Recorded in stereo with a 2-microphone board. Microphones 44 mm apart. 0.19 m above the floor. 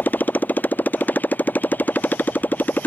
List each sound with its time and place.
0.0 s a motorcycle: 45° left (ahead or behind)